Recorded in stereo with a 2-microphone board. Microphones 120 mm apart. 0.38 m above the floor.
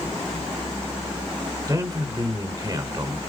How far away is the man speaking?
About 1.5 m.